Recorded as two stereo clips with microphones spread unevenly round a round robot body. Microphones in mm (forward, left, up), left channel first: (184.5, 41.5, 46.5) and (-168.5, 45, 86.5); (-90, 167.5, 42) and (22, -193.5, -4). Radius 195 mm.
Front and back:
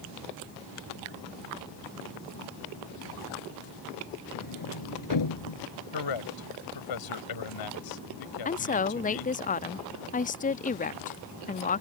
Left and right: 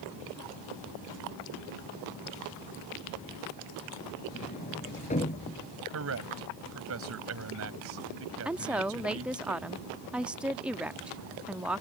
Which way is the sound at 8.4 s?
5° right.